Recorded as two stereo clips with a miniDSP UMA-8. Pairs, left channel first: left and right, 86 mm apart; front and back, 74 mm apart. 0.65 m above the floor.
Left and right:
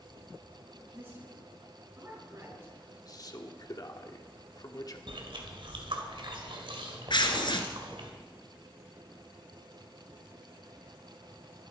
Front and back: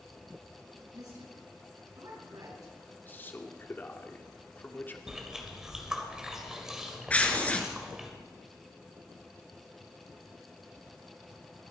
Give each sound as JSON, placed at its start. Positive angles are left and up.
{"t": 0.9, "sound": "a woman speaking", "azimuth_deg": -160, "distance_m": 6.5}
{"t": 2.9, "sound": "a man speaking", "azimuth_deg": 55, "distance_m": 1.4}
{"t": 5.1, "sound": "chewing", "azimuth_deg": -100, "distance_m": 2.5}
{"t": 7.1, "sound": "tearing paper", "azimuth_deg": 70, "distance_m": 1.6}